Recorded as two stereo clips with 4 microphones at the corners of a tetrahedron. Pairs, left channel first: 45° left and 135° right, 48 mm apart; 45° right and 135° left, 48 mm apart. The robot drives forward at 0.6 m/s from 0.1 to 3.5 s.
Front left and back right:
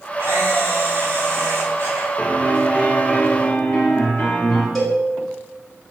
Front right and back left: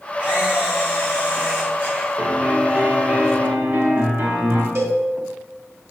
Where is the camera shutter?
165° right, 3 m; by 2.1 s 170° right, 4 m.